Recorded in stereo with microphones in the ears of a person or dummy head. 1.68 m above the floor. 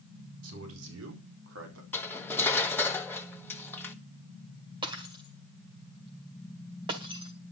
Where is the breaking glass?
30° right (ahead or behind), 1.9 m.